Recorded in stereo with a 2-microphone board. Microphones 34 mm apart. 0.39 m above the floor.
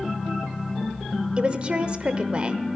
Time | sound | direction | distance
1.4 | a woman speaking | 30° right (ahead or behind) | 1.0 m